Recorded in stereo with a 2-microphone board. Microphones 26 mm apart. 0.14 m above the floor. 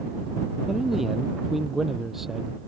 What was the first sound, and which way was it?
A man speaking, 10° right (ahead or behind).